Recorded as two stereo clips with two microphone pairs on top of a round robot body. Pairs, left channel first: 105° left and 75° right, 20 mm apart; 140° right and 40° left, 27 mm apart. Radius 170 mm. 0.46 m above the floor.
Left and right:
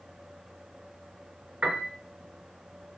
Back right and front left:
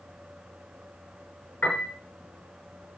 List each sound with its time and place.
1.6 s a piano: 125° right, 5.5 m